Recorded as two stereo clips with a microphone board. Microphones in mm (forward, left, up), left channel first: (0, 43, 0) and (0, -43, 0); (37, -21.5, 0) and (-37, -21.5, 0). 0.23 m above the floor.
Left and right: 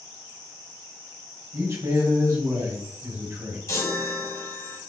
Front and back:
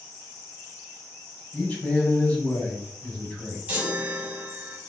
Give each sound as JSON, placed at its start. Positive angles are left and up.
{"t": 1.5, "sound": "a man speaking", "azimuth_deg": -65, "distance_m": 1.4}
{"t": 3.7, "sound": "a chime", "azimuth_deg": 120, "distance_m": 1.2}